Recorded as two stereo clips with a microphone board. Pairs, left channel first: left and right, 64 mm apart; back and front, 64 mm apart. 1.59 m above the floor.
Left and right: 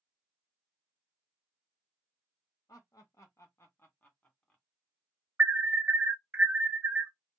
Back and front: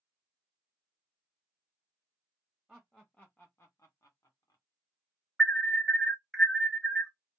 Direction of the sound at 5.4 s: 85° right.